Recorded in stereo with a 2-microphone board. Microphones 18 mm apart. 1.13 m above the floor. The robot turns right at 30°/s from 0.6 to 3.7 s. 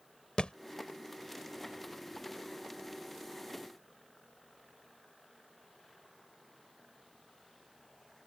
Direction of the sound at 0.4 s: 60° left (ahead or behind).